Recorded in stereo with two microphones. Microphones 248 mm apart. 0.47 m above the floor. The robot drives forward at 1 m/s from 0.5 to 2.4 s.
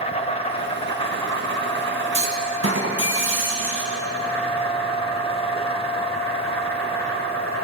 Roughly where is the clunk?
Right.